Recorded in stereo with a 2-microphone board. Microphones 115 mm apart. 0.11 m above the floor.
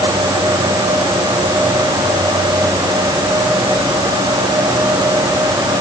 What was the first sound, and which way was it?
Only background noise.